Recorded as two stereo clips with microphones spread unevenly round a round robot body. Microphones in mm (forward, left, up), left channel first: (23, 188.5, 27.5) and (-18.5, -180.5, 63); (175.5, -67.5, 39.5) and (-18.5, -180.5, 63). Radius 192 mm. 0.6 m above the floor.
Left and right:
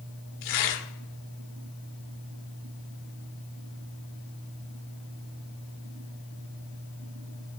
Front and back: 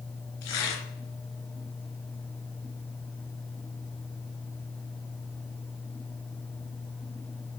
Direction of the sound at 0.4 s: 45° left.